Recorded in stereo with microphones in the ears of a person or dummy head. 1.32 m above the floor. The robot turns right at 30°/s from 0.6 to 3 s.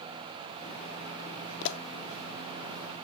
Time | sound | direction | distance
1.6 | a pop | 70° left (ahead or behind) | 0.5 m